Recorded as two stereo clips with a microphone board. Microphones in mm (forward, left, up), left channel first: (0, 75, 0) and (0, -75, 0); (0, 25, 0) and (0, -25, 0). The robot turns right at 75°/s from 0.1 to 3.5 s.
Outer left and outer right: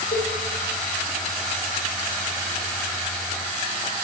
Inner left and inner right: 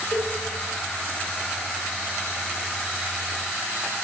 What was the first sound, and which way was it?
A cowbell, 85° left.